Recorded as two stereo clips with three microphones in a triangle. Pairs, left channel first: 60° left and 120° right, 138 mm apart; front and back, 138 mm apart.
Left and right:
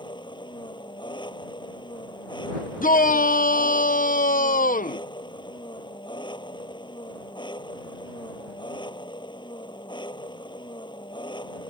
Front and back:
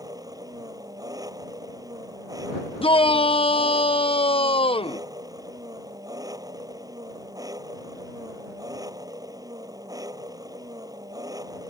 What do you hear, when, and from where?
0.0 s an engine running: 115° left
2.8 s a shout: 50° left